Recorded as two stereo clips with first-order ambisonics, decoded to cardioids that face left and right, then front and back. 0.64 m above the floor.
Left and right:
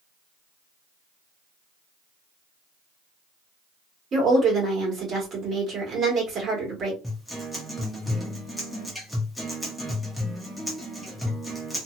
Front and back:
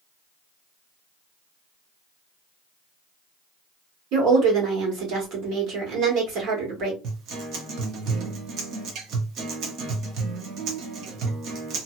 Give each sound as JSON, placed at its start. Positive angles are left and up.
{"t": 4.1, "sound": "a woman speaking", "azimuth_deg": -150, "distance_m": 1.7}
{"t": 7.0, "sound": "a guitar", "azimuth_deg": 175, "distance_m": 0.9}